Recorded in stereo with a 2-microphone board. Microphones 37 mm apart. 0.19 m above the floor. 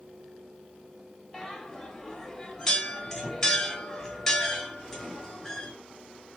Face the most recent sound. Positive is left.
turn(degrees=5)  # may be behind; listen again after turning